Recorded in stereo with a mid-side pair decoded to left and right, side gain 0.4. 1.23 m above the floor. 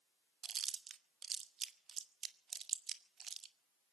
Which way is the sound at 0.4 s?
55° right.